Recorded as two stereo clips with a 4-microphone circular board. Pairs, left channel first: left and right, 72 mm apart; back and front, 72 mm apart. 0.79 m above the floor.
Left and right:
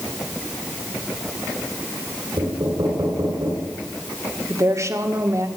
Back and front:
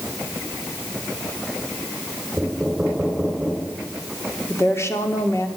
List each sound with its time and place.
2.4 s knocking: 85° right, 3.5 m
4.5 s a woman speaking: 130° right, 1.9 m